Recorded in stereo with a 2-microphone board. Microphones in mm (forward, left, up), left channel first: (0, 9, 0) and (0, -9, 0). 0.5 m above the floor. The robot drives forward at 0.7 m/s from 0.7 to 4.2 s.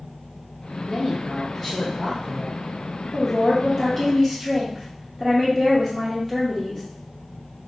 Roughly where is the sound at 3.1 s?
Centre.